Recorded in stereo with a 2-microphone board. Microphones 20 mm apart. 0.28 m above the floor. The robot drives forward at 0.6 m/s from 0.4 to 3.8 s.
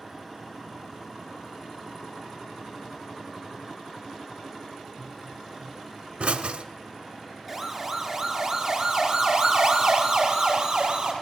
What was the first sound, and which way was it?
A pop, 75° right (ahead or behind).